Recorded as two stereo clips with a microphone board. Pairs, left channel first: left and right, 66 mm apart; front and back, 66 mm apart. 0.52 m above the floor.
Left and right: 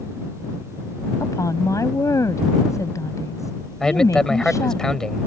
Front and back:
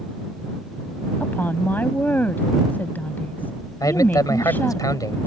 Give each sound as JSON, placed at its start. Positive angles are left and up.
{"t": 1.2, "sound": "a woman speaking", "azimuth_deg": 60}
{"t": 3.8, "sound": "a man speaking", "azimuth_deg": 10}